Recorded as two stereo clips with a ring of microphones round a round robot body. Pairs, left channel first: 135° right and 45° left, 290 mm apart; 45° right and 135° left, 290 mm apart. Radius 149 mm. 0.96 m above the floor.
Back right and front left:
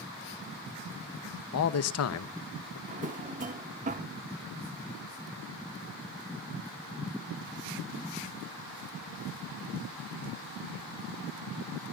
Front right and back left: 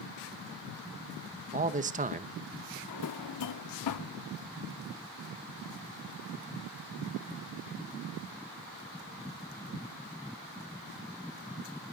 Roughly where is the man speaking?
Behind.